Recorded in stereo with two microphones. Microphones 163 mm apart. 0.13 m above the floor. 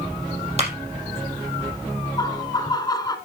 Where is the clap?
40° right (ahead or behind), 4 m.